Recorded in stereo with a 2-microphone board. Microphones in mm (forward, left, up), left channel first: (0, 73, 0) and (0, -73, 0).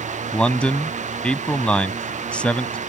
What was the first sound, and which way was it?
A man speaking, 10° left (ahead or behind).